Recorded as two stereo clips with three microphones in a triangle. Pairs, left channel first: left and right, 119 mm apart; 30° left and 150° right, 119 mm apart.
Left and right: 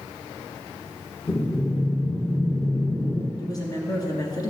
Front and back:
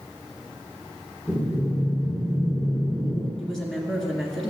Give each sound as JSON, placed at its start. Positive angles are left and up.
{"t": 1.3, "sound": "breathing", "azimuth_deg": 135, "distance_m": 1.5}
{"t": 3.4, "sound": "a woman speaking", "azimuth_deg": 115, "distance_m": 1.6}